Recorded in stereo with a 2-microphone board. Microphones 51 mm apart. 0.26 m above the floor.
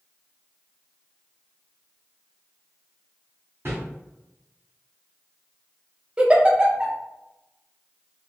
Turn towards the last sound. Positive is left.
turn(degrees=-20)  # may be behind; listen again after turning